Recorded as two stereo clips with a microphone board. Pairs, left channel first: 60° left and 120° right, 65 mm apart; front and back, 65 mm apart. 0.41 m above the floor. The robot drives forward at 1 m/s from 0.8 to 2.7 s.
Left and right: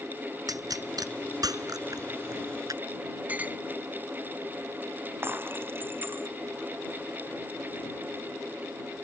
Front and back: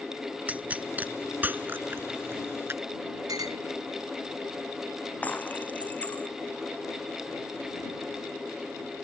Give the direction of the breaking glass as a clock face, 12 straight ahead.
2 o'clock.